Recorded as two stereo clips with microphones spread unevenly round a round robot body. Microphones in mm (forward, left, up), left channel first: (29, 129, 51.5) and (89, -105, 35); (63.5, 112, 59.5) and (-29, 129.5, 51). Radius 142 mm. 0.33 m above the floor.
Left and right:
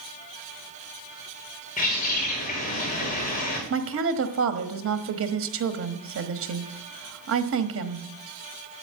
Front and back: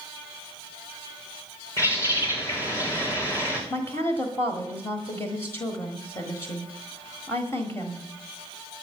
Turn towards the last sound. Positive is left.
turn(degrees=-80)